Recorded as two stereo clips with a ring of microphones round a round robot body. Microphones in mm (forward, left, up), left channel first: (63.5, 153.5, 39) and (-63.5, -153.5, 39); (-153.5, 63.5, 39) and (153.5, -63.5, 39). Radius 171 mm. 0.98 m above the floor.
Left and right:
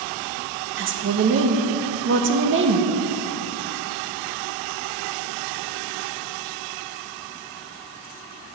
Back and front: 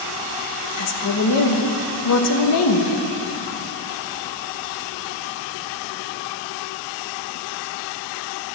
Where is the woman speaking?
165° right, 1.3 m.